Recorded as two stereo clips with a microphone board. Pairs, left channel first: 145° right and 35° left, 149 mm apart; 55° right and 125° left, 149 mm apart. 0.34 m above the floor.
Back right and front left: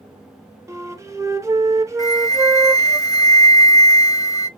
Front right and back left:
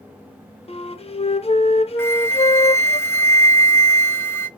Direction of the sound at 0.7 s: 30° right.